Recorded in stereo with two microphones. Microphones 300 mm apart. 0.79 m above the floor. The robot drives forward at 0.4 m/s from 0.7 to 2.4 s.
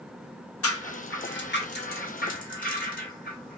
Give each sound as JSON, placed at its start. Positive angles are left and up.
{"t": 0.6, "sound": "a rattle", "side_deg": 50, "distance_m": 0.7}